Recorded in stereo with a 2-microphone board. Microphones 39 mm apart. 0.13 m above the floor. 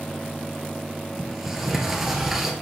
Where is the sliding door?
5° right (ahead or behind), 2.5 m.